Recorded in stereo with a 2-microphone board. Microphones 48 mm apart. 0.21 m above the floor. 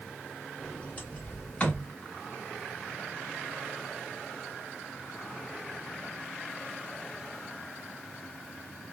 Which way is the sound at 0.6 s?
30° left (ahead or behind).